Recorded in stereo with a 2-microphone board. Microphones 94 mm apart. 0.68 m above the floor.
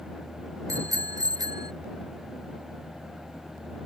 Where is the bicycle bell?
35° right (ahead or behind); by 1.7 s 45° right (ahead or behind).